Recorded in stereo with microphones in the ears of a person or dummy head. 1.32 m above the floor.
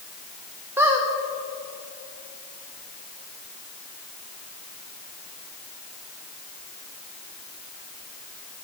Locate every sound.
0.8 s a squeak: 15° right (ahead or behind), 0.8 m